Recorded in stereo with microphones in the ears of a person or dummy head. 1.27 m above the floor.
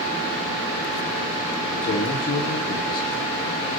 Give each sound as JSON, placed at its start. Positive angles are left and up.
{"t": 1.8, "sound": "a man speaking", "side_deg": 55, "distance_m": 2.0}